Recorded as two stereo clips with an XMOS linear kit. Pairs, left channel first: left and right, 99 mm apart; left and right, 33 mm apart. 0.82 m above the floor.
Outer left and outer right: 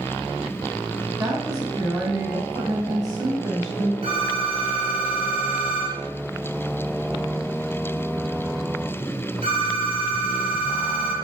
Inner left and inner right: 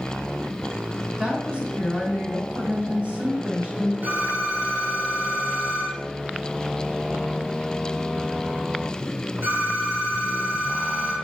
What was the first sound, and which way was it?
A woman speaking, 40° right (ahead or behind).